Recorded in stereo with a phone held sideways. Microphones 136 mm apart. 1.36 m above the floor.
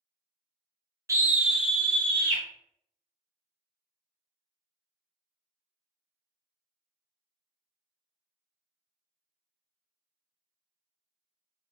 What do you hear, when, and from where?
1.1 s a scream: 25° right (ahead or behind), 0.7 m; by 2.4 s 15° left (ahead or behind), 1.6 m